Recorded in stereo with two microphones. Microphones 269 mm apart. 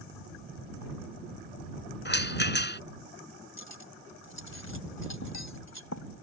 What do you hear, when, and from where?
2.0 s a rattle: 35° left (ahead or behind)
3.6 s cutlery clinking: 65° left (ahead or behind)